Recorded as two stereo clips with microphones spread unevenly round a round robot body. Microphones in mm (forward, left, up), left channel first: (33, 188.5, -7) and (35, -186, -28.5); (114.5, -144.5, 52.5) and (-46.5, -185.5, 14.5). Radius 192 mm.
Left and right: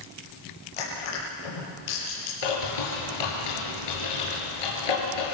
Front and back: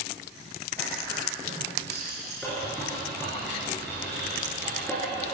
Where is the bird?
100° left, 6.5 m.